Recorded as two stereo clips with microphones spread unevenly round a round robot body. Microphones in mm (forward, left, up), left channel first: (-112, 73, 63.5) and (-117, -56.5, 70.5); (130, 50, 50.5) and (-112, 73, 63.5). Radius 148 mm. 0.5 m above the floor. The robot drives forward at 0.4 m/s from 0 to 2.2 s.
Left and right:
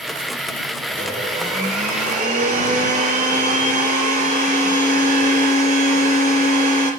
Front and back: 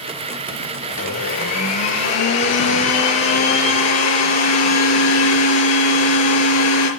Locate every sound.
0.9 s a blender: 35° right, 6.5 m